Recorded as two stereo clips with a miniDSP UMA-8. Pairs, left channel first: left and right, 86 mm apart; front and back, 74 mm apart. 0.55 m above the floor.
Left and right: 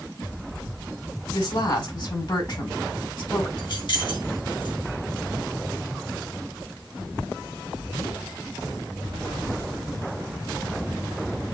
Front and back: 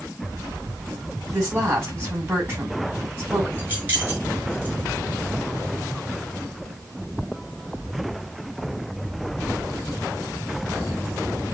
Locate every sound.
1.3 s a woman speaking: 115° left, 5 m
3.6 s keys jangling: 110° left, 3.5 m